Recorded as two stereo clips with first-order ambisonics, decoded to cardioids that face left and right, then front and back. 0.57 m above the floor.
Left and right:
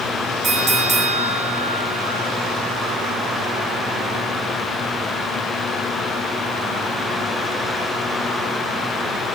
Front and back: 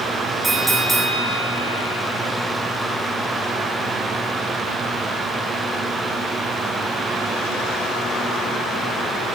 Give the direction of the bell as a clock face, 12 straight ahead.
4 o'clock.